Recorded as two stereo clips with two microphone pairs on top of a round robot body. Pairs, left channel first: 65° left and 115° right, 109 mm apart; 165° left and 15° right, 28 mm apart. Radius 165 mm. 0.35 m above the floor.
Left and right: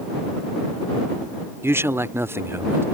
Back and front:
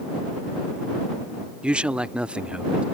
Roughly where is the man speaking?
Ahead right.